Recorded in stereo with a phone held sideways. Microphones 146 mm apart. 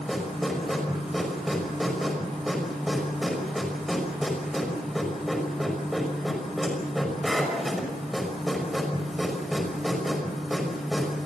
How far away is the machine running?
About 5.5 m.